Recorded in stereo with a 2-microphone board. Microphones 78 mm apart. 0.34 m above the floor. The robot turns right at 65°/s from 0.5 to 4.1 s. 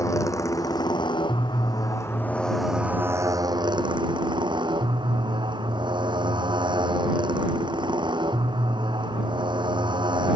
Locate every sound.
0.0 s a motorcycle: 45° left; by 10.4 s 85° right